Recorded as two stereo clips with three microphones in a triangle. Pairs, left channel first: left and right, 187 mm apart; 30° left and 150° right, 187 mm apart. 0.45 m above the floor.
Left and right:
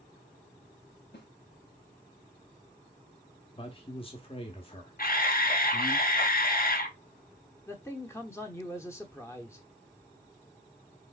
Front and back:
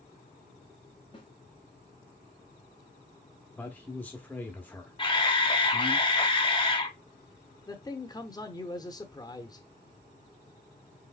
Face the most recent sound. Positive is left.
turn(degrees=45)